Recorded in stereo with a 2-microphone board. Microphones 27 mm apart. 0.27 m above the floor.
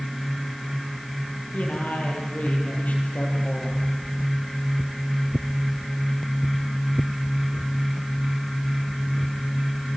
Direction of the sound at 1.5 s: 70° left (ahead or behind).